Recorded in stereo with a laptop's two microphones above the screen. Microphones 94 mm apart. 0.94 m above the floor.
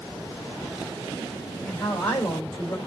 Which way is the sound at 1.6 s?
20° left (ahead or behind).